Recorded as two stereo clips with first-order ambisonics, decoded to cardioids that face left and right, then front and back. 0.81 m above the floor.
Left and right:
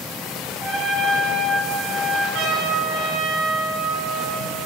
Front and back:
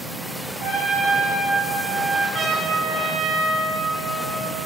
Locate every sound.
0.6 s a trumpet: 160° left, 5 m
2.3 s a trumpet: 120° right, 3.5 m